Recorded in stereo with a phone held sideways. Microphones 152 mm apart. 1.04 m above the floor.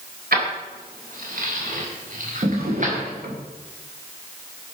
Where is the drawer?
85° right, 2 m.